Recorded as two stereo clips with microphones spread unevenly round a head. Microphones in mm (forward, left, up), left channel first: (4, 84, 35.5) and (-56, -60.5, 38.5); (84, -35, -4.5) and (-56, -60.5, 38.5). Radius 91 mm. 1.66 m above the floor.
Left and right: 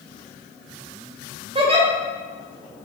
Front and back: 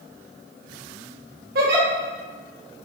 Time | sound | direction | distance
1.6 | a giggle | 170° right | 0.9 m